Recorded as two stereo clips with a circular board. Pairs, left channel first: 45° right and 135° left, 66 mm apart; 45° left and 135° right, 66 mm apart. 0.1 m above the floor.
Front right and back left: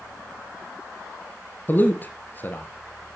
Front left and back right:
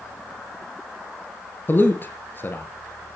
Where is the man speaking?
Straight ahead, 1.8 m.